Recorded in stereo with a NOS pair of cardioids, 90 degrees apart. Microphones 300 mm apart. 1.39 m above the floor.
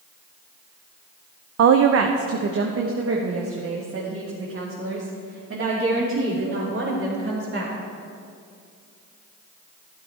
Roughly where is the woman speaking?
Ahead right.